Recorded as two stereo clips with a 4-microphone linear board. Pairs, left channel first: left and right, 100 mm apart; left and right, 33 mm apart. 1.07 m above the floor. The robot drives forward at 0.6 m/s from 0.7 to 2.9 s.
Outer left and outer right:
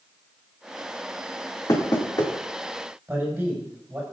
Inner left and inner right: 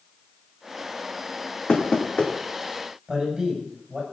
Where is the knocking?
40° left (ahead or behind), 2.5 m; by 2.3 s 45° left (ahead or behind), 2 m.